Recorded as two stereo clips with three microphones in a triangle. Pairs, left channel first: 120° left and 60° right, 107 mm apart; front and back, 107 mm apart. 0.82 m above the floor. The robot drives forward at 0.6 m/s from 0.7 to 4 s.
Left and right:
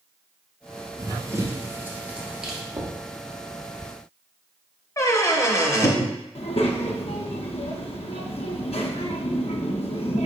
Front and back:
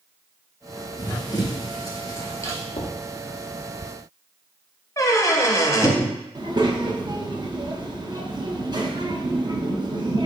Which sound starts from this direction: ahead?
Knocking, at 2.7 s.